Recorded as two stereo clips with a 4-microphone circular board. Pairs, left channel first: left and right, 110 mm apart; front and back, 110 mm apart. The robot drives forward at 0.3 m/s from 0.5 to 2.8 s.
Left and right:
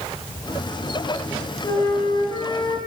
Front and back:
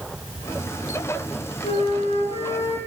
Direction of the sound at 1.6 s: 35° left.